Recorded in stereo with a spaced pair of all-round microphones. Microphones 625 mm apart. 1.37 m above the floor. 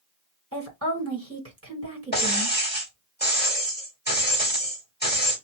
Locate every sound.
0.5 s a woman speaking: 20° right (ahead or behind), 1.5 m
2.1 s breaking glass: 15° left (ahead or behind), 1.8 m